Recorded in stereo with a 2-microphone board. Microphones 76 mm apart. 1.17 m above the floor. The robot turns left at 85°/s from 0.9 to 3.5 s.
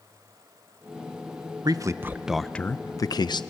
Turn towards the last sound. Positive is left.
turn(degrees=85)